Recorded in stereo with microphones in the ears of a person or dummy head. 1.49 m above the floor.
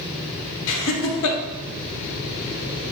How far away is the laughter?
About 1.0 m.